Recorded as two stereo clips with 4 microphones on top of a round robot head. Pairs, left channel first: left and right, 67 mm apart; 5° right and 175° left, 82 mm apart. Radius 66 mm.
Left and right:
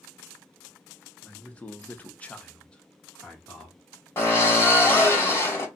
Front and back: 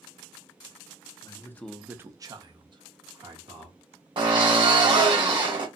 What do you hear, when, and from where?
1.2 s a man speaking: 20° left, 0.9 m; by 3.8 s 170° left, 2.5 m
4.2 s a drill: 145° left, 2 m